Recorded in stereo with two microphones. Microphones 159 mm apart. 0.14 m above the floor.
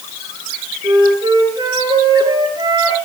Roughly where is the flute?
Right.